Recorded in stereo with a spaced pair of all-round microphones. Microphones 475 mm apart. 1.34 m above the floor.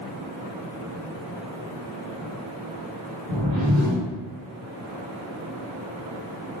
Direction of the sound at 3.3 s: 70° right (ahead or behind).